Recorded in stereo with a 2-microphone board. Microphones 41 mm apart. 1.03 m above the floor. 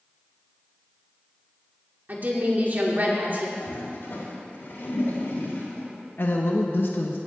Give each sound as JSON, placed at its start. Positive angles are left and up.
{"t": 2.1, "sound": "a woman speaking", "side_deg": -45, "distance_m": 2.5}
{"t": 3.6, "sound": "a toilet flushing", "side_deg": 65, "distance_m": 4.5}
{"t": 6.2, "sound": "a woman speaking", "side_deg": 60, "distance_m": 1.2}